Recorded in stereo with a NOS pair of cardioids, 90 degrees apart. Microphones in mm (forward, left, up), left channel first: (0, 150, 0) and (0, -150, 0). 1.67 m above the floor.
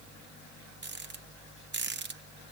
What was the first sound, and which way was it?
A rattle, 35° right.